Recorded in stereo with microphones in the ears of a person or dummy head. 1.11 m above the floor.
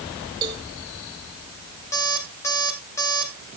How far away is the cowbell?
About 2.5 m.